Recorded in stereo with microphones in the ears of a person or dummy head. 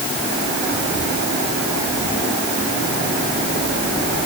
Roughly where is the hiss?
I don't hear a hiss.